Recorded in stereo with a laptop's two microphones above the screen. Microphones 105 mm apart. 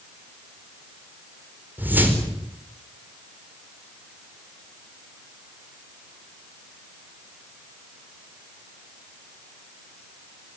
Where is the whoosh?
15° right (ahead or behind), 4.5 m.